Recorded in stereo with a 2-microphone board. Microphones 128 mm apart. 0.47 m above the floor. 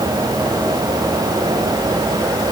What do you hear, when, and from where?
Only background noise.